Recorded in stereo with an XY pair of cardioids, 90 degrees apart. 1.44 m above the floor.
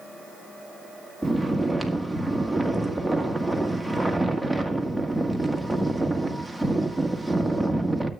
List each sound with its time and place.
1.2 s snoring: straight ahead, 1.6 m